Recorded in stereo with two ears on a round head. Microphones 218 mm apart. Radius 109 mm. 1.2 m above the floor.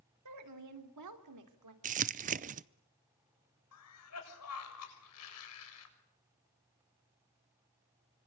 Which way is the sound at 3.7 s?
70° left (ahead or behind).